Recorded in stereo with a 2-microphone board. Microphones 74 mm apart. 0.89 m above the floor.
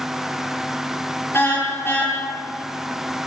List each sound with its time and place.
1.3 s a car horn: 30° left (ahead or behind), 8.5 m